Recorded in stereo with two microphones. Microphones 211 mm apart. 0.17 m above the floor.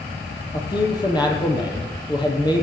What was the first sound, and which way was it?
A man speaking, 20° left (ahead or behind).